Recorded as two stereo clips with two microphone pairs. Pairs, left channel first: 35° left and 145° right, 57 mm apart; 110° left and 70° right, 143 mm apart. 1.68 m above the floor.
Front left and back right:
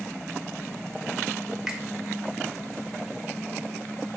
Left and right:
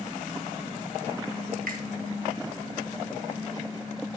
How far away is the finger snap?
About 1.5 m.